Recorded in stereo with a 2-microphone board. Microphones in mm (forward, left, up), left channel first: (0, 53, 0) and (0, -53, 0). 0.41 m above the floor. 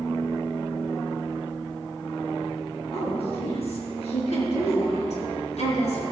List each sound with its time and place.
2.9 s a woman speaking: 60° left (ahead or behind), 4 m; by 6.0 s 75° left (ahead or behind), 4.5 m